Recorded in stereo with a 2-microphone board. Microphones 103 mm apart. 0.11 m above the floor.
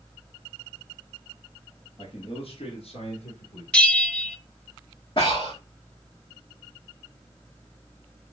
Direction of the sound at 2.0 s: 55° left (ahead or behind).